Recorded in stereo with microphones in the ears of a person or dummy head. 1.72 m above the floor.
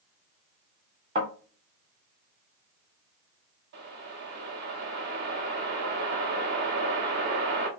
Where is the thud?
30° right (ahead or behind), 1.4 m.